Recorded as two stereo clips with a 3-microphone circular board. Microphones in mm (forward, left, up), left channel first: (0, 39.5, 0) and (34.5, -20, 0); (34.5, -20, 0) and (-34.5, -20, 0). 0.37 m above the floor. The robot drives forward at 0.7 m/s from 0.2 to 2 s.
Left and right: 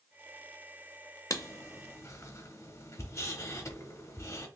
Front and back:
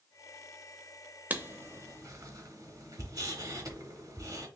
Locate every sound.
1.3 s writing: 125° left, 0.5 m; by 4.5 s 155° left, 0.8 m